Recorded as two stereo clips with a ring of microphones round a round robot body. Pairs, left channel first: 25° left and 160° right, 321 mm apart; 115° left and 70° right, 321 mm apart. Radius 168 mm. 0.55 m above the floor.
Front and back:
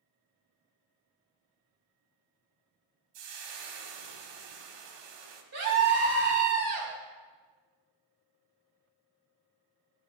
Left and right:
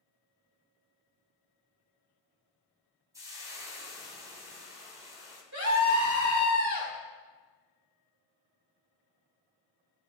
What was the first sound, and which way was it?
Frying, 150° right.